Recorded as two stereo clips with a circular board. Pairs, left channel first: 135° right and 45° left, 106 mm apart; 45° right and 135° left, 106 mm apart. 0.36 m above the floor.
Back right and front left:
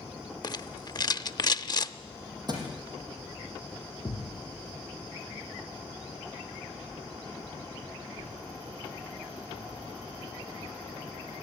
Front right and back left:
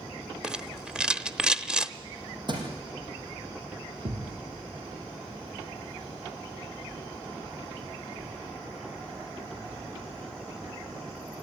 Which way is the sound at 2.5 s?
95° left.